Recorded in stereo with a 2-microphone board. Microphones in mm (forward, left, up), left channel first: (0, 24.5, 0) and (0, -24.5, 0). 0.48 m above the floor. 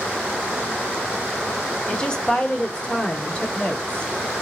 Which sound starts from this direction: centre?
A woman speaking, at 1.9 s.